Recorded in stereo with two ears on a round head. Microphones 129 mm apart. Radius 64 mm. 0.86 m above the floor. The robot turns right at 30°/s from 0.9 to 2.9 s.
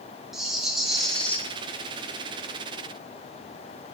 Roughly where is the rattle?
Centre.